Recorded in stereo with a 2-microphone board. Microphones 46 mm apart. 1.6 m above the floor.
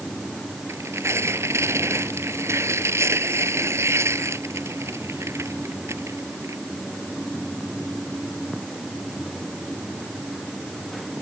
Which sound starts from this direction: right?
Tearing paper, at 0.7 s.